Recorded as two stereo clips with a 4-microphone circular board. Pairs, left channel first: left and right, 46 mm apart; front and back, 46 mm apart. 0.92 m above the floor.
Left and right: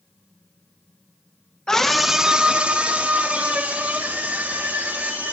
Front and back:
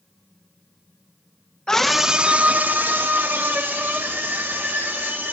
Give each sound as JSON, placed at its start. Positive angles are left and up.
{"t": 1.7, "sound": "a scream", "azimuth_deg": 45, "distance_m": 0.7}